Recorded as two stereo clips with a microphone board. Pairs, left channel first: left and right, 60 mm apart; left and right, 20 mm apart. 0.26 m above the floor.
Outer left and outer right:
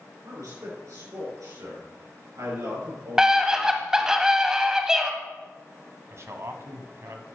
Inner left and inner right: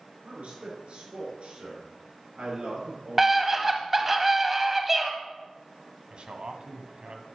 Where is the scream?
10° right (ahead or behind), 1.2 m.